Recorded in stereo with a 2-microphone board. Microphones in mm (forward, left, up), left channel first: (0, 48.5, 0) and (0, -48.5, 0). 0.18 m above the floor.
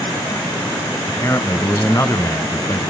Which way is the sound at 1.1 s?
30° left (ahead or behind).